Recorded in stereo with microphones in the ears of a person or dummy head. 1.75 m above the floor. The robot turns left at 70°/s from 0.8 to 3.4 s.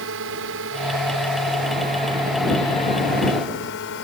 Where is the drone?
65° right (ahead or behind); by 4.0 s 60° left (ahead or behind).